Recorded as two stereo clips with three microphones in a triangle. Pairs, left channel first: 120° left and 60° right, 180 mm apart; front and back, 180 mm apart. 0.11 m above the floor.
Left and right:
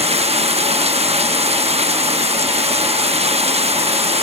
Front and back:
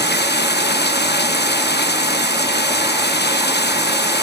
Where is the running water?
10° right.